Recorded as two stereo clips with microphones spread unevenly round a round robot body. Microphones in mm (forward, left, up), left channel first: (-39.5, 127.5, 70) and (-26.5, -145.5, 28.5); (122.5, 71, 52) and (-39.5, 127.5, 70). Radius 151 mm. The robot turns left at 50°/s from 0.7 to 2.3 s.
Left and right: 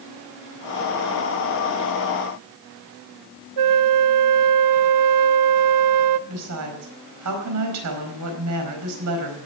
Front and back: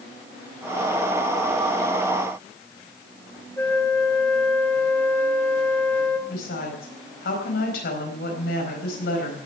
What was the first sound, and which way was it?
A flute, 105° right.